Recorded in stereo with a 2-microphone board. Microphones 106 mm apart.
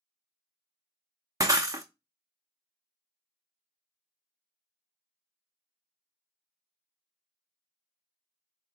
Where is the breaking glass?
30° right (ahead or behind), 0.6 m.